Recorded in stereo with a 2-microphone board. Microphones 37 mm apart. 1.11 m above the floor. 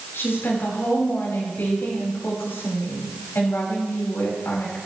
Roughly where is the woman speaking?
Left.